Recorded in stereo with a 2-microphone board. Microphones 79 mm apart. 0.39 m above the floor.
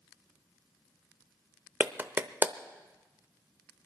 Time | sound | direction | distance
1.8 | a clap | 25° right (ahead or behind) | 0.7 m